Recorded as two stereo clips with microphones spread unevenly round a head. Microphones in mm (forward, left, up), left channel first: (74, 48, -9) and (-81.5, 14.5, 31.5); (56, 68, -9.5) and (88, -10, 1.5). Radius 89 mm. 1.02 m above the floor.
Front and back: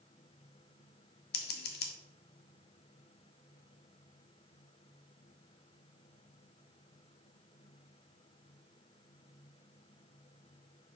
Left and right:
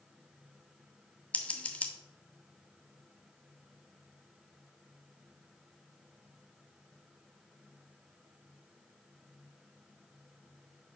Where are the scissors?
35° left, 0.9 m.